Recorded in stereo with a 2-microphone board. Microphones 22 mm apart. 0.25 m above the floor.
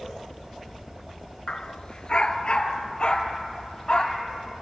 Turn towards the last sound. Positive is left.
turn(degrees=35)  # may be behind; listen again after turning